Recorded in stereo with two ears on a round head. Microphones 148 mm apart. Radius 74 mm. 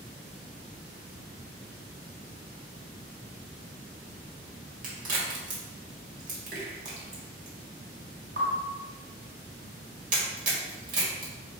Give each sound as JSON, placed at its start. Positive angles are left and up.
{"t": 4.8, "sound": "a crack", "side_deg": -55, "distance_m": 1.5}